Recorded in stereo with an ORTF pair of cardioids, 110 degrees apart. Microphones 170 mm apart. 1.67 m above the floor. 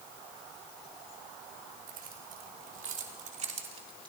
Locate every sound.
1.9 s keys jangling: 70° right, 4 m; by 4.1 s 30° right, 2.5 m